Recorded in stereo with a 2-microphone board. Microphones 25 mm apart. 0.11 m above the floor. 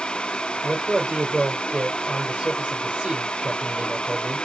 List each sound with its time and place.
0.6 s a man speaking: 55° right (ahead or behind), 4 m